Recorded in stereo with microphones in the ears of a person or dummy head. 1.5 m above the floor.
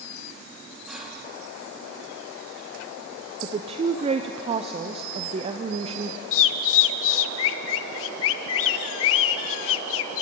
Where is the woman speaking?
35° right (ahead or behind), 0.7 m.